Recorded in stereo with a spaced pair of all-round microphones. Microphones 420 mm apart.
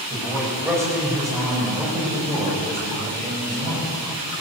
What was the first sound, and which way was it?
A man speaking, 5° right (ahead or behind).